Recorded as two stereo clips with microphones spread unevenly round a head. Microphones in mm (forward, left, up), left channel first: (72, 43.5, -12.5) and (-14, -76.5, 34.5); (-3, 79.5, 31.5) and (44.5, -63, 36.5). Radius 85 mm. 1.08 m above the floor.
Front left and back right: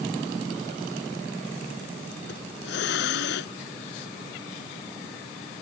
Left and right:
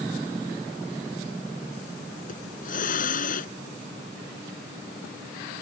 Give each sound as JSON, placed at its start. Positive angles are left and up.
{"t": 2.3, "sound": "a hiss", "azimuth_deg": 75}